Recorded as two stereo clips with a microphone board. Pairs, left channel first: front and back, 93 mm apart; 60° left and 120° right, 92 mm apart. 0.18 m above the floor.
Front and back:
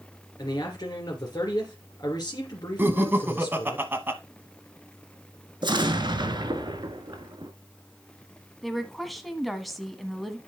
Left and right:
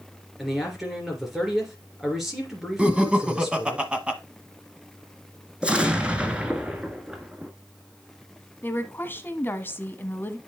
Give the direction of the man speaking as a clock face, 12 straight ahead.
1 o'clock.